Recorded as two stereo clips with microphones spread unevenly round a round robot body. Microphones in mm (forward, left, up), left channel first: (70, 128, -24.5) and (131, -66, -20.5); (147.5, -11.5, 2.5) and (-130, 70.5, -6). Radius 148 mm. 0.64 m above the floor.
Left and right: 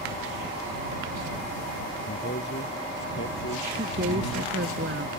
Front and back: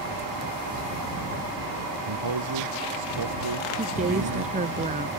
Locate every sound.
2.1 s a man speaking: 165° left; by 4.5 s 160° left
3.8 s a woman speaking: 130° right